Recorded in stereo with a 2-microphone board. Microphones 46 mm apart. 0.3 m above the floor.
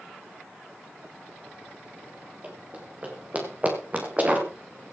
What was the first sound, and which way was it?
Running footsteps, 30° right (ahead or behind).